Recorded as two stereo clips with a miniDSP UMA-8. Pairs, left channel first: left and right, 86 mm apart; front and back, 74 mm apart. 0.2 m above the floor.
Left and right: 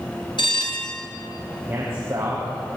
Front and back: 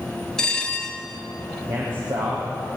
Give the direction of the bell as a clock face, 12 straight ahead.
9 o'clock.